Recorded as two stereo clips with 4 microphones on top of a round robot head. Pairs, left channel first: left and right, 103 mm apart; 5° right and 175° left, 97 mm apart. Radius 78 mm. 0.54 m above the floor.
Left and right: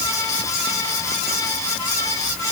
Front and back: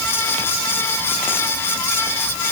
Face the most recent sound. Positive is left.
No sound to turn to.